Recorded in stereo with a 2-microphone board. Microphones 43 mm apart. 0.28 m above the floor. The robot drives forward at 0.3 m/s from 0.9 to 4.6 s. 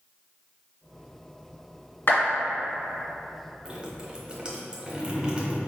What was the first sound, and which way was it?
A clap, 60° left (ahead or behind).